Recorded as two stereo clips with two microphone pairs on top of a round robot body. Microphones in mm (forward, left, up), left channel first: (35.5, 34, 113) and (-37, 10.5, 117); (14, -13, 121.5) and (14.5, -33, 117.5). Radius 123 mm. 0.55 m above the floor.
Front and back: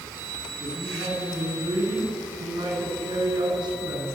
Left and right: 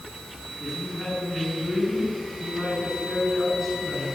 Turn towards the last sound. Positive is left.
turn(degrees=175)